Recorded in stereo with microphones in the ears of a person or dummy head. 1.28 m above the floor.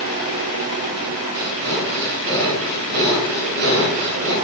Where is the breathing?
60° right (ahead or behind), 10 m.